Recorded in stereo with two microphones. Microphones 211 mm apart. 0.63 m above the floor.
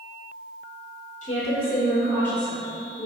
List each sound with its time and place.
1.2 s a woman speaking: 35° left (ahead or behind), 1.5 m; by 3.1 s 5° right (ahead or behind), 1.8 m